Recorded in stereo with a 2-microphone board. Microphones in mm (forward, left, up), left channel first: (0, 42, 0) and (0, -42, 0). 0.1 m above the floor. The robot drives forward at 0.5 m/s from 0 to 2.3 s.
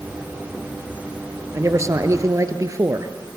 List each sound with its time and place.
1.5 s a man speaking: 35° right (ahead or behind), 1.6 m; by 3.1 s 40° right (ahead or behind), 1.4 m